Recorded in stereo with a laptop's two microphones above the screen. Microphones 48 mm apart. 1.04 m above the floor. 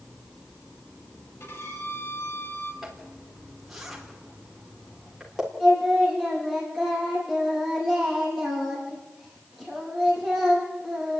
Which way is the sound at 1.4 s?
60° left (ahead or behind).